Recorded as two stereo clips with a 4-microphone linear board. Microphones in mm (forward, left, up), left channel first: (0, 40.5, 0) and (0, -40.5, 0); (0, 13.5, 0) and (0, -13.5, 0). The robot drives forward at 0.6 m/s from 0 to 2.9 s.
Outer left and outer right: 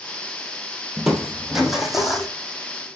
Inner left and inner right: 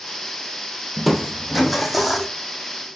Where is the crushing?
5° right (ahead or behind), 0.8 m.